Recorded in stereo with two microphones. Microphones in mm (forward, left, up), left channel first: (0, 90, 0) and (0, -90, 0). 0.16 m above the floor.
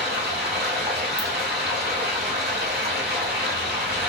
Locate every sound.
0.0 s running water: 65° right (ahead or behind), 1.5 m
1.2 s a ringtone: 10° right (ahead or behind), 1.0 m